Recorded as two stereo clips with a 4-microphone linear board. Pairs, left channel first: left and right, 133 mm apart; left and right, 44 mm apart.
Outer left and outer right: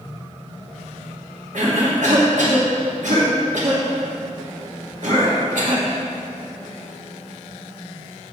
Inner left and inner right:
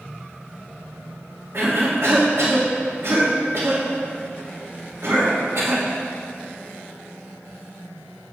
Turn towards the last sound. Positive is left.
turn(degrees=-70)  # may be behind; listen again after turning